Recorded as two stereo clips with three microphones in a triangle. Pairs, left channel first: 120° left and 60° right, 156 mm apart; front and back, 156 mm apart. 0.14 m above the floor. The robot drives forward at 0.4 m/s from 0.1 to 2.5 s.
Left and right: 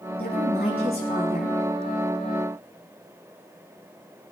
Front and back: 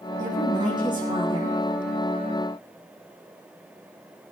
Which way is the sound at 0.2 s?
120° left.